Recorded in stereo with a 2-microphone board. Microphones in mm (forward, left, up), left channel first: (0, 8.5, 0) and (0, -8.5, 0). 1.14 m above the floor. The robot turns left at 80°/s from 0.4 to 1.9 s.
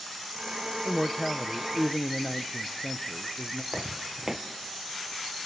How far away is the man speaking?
About 0.8 m.